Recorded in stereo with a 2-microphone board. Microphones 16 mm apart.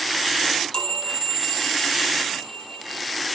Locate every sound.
0.5 s a chime: 70° left (ahead or behind), 3.5 m